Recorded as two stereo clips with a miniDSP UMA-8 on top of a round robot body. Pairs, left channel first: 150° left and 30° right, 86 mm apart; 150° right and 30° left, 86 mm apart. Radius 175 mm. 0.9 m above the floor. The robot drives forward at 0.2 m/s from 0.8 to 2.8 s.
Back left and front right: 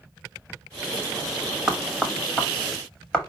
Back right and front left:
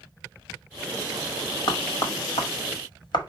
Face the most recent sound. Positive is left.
turn(degrees=-130)